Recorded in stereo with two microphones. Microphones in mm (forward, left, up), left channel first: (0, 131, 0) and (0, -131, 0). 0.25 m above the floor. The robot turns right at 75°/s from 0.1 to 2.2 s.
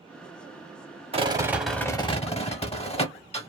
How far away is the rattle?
About 0.5 m.